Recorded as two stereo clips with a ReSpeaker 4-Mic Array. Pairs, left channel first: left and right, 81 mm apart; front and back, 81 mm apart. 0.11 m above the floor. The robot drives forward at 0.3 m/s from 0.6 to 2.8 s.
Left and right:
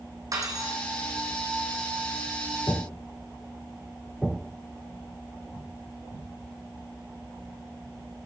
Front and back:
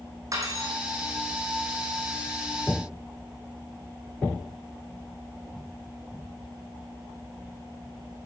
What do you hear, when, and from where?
0.3 s cutlery clinking: 135° right, 4 m